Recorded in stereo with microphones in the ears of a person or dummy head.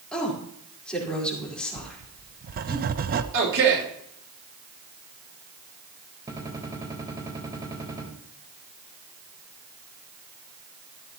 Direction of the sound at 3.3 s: 65° right (ahead or behind).